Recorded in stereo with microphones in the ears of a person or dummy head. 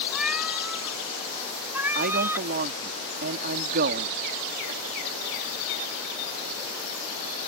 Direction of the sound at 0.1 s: 5° right (ahead or behind).